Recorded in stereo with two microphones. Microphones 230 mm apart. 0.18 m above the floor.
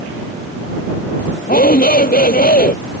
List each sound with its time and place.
1.5 s a shout: 40° left (ahead or behind)